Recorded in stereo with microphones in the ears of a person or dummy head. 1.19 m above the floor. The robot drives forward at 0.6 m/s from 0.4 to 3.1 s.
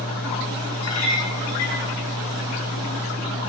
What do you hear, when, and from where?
0.8 s a clink: 80° left, 6.5 m; by 1.8 s 75° left (ahead or behind), 6.5 m